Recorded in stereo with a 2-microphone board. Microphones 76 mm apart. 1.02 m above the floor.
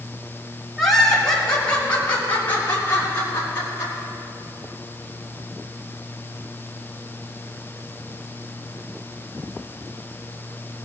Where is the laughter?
Centre (ahead or behind), 4.5 m; by 3.9 s 35° left (ahead or behind), 8 m.